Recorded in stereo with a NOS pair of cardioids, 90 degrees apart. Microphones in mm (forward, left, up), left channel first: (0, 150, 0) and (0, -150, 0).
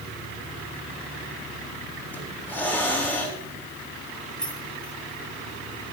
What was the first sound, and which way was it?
A hiss, 5° left.